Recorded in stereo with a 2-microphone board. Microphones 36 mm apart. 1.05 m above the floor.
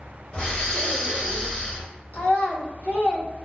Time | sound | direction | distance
0.3 | breathing | 25° left (ahead or behind) | 1.6 m
2.1 | a child speaking | 55° left (ahead or behind) | 1.3 m